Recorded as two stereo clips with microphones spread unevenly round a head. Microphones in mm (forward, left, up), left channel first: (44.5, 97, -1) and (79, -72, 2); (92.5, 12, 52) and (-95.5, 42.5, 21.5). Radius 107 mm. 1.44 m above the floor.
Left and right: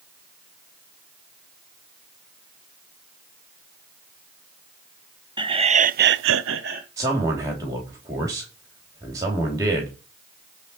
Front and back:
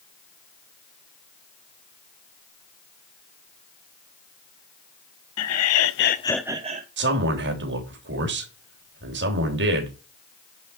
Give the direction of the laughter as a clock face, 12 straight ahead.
12 o'clock.